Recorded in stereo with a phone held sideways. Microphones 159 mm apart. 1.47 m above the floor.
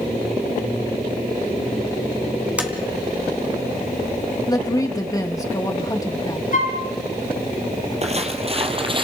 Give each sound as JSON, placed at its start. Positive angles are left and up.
{"t": 2.6, "sound": "tapping", "side_deg": -10, "distance_m": 2.5}
{"t": 4.5, "sound": "a woman speaking", "side_deg": 20, "distance_m": 2.5}
{"t": 6.5, "sound": "a flute", "side_deg": 55, "distance_m": 4.5}
{"t": 8.0, "sound": "footsteps", "side_deg": -45, "distance_m": 2.0}